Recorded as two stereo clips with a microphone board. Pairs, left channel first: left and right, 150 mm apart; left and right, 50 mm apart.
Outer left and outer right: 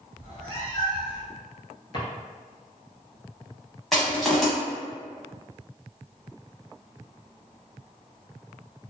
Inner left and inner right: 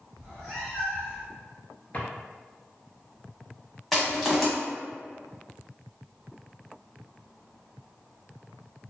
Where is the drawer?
35° left (ahead or behind), 0.7 m.